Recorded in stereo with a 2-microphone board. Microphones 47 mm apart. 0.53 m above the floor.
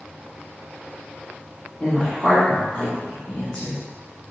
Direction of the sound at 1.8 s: 20° left (ahead or behind).